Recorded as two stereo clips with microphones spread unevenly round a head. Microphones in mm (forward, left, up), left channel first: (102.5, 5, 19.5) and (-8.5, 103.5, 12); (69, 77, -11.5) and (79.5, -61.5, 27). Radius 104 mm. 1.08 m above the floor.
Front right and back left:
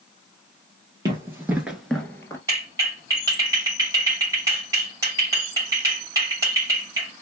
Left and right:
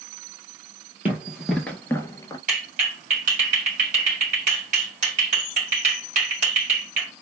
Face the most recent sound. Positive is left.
turn(degrees=-145)